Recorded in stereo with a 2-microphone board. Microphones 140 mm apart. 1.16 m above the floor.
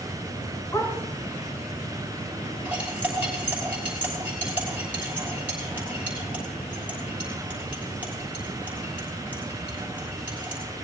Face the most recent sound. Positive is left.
turn(degrees=-10)  # may be behind; listen again after turning